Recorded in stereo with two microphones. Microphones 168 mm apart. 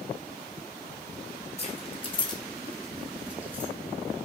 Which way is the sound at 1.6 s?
40° left (ahead or behind).